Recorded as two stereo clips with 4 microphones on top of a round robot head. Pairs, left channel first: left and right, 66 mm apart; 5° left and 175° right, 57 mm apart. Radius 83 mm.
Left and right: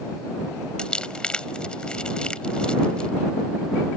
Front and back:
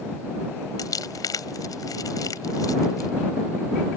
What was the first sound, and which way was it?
Crumpling, 15° left.